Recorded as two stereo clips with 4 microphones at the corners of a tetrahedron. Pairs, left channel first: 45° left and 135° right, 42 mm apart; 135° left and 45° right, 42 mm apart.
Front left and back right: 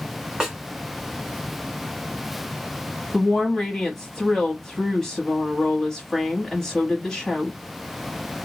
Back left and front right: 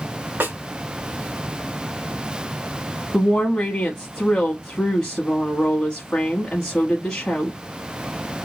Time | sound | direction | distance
0.4 | a snare drum | 55° right | 1.3 m
3.1 | a woman speaking | 110° left | 1.0 m